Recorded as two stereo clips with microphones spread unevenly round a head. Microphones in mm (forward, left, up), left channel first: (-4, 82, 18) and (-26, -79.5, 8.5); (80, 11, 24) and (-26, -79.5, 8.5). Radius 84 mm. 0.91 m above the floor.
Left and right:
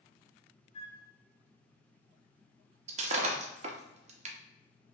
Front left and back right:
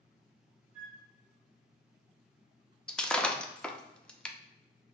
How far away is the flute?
About 1.5 m.